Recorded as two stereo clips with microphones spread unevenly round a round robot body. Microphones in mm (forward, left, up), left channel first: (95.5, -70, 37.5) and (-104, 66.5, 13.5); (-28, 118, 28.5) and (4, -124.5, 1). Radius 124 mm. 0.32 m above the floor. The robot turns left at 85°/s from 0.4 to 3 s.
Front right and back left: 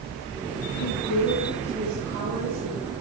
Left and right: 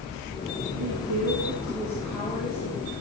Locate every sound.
0.7 s a woman speaking: 60° right, 6 m; by 2.9 s 115° left, 6 m